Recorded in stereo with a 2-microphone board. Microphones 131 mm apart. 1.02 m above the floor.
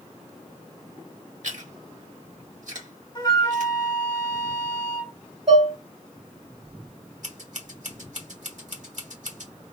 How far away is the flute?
About 1.2 m.